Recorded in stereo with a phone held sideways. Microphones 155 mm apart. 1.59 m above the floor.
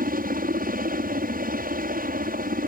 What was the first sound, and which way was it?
A helicopter, 65° right (ahead or behind).